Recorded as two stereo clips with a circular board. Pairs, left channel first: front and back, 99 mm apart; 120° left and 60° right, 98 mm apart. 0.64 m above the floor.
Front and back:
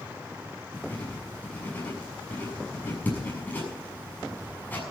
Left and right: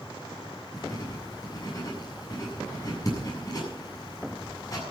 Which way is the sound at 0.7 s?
70° left.